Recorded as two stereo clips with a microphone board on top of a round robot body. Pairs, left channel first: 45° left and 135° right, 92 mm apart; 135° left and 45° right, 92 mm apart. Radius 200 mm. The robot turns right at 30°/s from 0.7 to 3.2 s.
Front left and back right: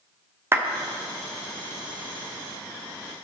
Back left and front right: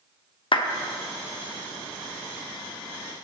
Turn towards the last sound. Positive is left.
turn(degrees=-125)